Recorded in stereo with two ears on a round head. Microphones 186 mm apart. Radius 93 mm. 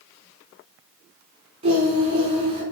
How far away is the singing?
About 3 m.